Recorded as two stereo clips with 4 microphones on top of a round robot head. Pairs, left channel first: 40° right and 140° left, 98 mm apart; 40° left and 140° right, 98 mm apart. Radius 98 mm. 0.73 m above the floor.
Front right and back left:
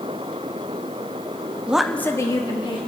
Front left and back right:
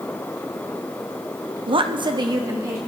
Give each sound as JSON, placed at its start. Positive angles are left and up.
{"t": 1.7, "sound": "a woman speaking", "azimuth_deg": -150, "distance_m": 0.8}